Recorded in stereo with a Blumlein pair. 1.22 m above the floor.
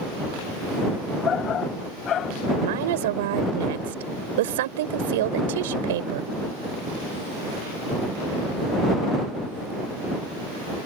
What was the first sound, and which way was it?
A shout, 25° left.